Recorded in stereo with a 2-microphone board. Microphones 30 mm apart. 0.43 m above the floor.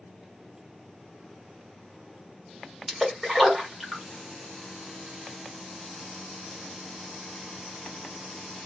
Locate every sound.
2.9 s a splash: centre (ahead or behind), 1.3 m